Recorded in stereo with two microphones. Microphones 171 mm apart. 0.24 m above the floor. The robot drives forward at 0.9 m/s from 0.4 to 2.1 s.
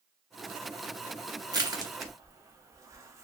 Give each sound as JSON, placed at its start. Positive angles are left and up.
{"t": 1.5, "sound": "crushing", "side_deg": -25, "distance_m": 0.6}